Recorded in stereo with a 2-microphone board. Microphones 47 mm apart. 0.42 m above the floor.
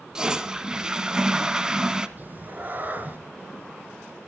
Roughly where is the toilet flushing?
Centre.